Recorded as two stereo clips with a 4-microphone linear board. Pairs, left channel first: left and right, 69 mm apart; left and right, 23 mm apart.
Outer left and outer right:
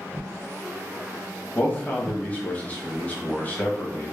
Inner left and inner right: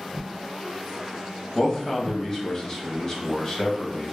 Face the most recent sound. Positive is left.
turn(degrees=25)  # may be behind; listen again after turning